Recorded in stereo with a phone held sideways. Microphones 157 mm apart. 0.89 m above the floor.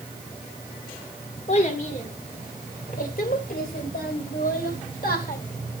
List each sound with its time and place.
1.5 s a child speaking: 45° left (ahead or behind), 2 m; by 5.4 s 70° left (ahead or behind), 4 m